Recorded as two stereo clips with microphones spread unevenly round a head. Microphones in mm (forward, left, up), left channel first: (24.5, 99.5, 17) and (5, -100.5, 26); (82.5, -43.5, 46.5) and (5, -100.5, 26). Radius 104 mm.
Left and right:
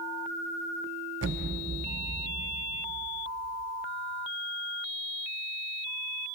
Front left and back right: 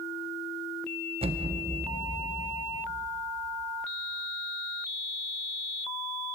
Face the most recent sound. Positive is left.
turn(degrees=-120)